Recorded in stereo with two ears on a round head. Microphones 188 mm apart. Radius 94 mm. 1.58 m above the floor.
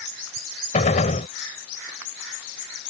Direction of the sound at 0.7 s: 35° left (ahead or behind).